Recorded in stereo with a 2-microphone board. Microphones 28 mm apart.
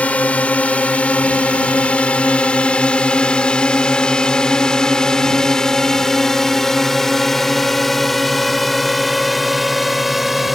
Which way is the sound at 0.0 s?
60° left (ahead or behind).